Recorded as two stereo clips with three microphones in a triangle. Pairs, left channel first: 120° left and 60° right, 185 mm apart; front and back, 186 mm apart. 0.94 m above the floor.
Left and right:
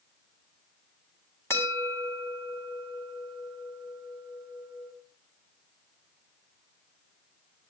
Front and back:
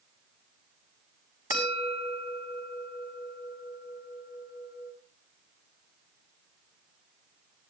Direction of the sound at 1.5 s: 45° left.